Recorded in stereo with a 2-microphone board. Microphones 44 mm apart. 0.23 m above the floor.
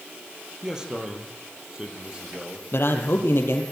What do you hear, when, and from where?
0.6 s a man speaking: 15° right (ahead or behind), 5.5 m
2.7 s a man speaking: 60° left (ahead or behind), 5.5 m